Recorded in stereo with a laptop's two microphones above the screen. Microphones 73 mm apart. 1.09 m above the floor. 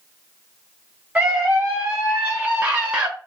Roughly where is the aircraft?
I don't hear an aircraft.